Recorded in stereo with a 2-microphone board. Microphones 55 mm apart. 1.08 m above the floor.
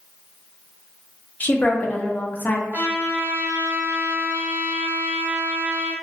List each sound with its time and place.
1.4 s a woman speaking: 30° left (ahead or behind), 0.5 m
2.7 s a trumpet: 30° right (ahead or behind), 0.9 m